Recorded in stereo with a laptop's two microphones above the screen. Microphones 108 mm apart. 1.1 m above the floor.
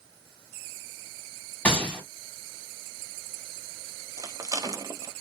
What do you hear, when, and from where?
1.6 s a gunshot: 10° left (ahead or behind), 1.3 m
4.2 s a rattle: 35° right (ahead or behind), 0.5 m